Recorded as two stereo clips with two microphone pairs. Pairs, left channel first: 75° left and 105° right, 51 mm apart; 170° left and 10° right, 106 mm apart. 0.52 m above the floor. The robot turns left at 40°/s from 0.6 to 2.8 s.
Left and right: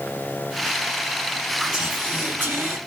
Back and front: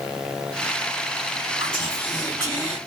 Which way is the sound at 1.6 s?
35° right.